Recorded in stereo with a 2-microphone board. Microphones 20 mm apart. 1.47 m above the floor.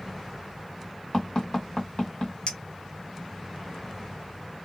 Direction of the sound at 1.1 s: 45° left (ahead or behind).